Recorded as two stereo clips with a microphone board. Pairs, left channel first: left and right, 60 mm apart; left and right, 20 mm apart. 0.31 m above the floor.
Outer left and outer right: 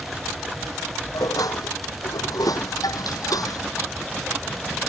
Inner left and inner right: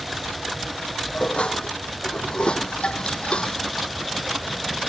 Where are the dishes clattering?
80° left.